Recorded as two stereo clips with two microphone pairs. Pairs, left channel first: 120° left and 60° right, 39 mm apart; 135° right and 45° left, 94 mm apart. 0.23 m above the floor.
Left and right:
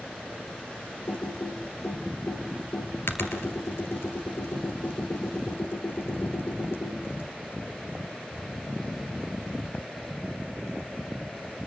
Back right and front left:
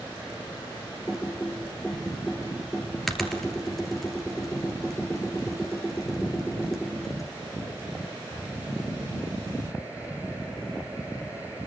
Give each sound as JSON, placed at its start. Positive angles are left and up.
{"t": 1.1, "sound": "typing on a keyboard", "azimuth_deg": 140, "distance_m": 2.5}